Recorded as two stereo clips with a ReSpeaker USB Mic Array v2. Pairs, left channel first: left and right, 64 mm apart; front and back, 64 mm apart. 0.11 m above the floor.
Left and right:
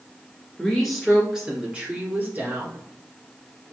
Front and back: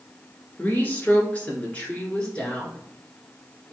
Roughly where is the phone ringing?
I don't hear a phone ringing.